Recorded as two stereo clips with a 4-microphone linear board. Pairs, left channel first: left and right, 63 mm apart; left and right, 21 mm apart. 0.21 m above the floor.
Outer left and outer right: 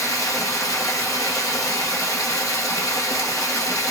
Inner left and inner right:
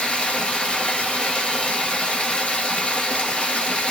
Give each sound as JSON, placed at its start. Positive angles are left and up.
{"t": 0.0, "sound": "running water", "side_deg": 75, "distance_m": 1.1}